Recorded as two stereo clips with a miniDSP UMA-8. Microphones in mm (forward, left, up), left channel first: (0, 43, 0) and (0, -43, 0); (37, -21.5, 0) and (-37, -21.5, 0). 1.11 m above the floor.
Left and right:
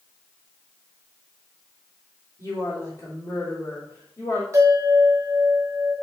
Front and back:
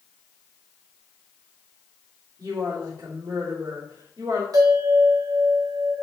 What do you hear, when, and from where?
2.4 s a woman speaking: 140° left, 3 m
4.5 s a bell: 145° right, 2 m